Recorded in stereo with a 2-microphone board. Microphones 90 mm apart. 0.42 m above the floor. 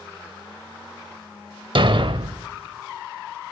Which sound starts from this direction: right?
A thud, at 1.8 s.